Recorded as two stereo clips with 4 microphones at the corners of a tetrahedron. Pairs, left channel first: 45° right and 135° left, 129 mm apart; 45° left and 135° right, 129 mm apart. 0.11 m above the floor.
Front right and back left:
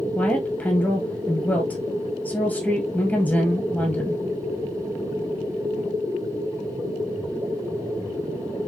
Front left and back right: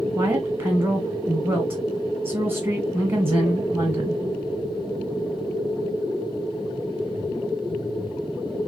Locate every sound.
0.1 s a woman speaking: 100° right, 1.3 m